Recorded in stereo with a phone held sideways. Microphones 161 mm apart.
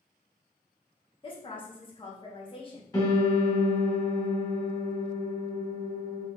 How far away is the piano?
About 2.5 m.